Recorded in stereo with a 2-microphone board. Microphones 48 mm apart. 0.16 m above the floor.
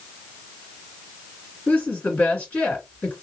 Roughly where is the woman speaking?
Left.